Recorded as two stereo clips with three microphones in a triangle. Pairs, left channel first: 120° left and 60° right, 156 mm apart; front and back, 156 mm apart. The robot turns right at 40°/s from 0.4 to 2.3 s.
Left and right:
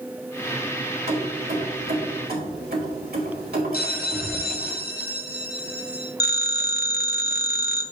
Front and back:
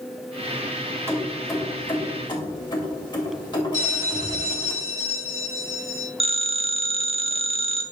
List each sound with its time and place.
1.1 s keys jangling: 110° right, 2 m; by 4.7 s 60° right, 2 m
3.7 s a bell: 140° left, 1.6 m
6.2 s a phone ringing: 125° left, 0.6 m